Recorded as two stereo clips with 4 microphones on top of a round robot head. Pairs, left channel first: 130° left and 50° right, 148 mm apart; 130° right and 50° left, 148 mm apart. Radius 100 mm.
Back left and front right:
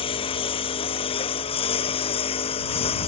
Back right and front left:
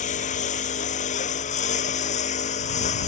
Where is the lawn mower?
175° right.